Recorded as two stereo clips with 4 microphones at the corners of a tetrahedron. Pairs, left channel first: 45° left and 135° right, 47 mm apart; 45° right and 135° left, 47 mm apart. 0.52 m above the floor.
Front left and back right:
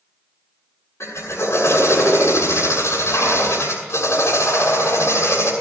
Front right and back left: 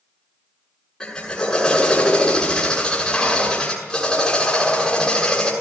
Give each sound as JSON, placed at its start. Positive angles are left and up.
{"t": 1.0, "sound": "a drill", "azimuth_deg": 30, "distance_m": 7.0}